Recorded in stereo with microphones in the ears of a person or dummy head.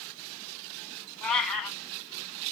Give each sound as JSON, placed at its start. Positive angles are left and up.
{"t": 1.2, "sound": "a cat meowing", "side_deg": 5, "distance_m": 2.0}